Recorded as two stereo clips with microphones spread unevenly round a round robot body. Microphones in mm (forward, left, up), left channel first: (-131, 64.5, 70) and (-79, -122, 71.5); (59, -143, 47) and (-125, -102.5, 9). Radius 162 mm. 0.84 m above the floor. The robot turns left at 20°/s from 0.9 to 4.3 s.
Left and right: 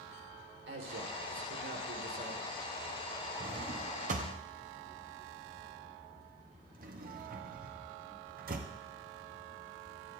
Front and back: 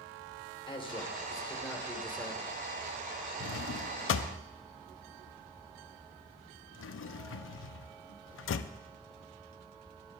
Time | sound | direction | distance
0.7 | a man speaking | 80° right | 3.5 m
3.4 | a drawer | 5° right | 0.6 m